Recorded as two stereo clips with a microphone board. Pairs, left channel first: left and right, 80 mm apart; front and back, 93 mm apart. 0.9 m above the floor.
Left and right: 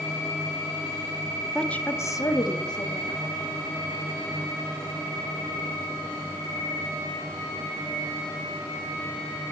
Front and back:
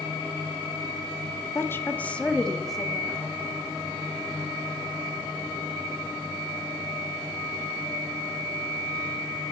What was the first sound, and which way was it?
A woman speaking, 10° left.